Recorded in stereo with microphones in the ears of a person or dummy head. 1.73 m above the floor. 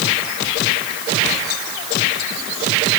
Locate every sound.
Only background noise.